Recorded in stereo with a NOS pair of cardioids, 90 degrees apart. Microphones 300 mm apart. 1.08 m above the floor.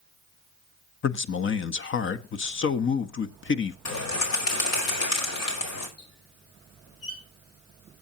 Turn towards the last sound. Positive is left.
turn(degrees=55)